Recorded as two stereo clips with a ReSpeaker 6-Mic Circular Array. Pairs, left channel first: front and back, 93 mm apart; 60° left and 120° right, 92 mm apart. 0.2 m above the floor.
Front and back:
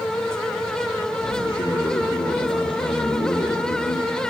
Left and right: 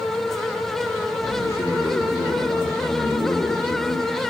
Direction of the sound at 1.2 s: 5° left.